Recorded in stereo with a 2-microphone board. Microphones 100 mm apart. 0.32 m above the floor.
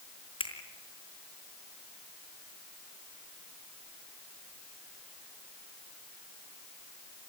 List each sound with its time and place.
0.4 s a finger snap: 65° left (ahead or behind), 4 m